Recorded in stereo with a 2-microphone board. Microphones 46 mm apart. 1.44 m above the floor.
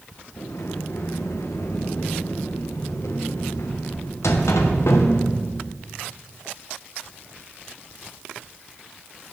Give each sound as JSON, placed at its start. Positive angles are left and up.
{"t": 0.4, "sound": "a sliding door", "side_deg": 85, "distance_m": 1.0}